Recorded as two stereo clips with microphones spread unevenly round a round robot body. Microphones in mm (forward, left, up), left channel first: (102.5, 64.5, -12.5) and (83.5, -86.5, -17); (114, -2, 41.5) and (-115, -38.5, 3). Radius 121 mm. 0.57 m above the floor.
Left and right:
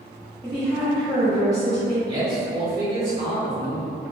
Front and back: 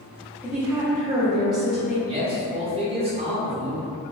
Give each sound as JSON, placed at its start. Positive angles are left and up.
{"t": 0.4, "sound": "a woman speaking", "azimuth_deg": 125, "distance_m": 0.6}
{"t": 2.1, "sound": "a man speaking", "azimuth_deg": -140, "distance_m": 0.8}